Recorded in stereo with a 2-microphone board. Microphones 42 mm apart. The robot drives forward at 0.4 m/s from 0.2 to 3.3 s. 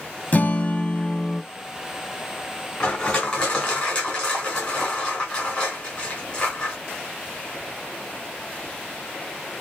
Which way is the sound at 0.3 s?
40° left (ahead or behind).